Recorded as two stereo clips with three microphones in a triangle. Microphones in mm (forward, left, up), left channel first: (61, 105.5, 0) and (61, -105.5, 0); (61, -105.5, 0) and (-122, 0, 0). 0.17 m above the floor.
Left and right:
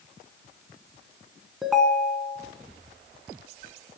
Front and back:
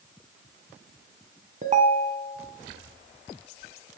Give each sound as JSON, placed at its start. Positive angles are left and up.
{"t": 1.6, "sound": "a ringtone", "azimuth_deg": 180, "distance_m": 0.5}